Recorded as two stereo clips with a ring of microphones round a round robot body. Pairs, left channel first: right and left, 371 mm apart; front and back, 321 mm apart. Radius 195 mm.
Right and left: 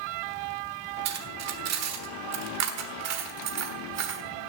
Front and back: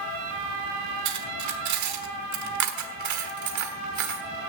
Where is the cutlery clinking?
140° left, 1.4 m.